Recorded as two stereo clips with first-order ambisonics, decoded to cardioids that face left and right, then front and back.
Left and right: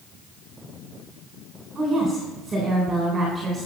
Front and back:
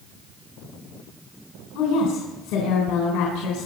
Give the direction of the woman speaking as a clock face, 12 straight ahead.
1 o'clock.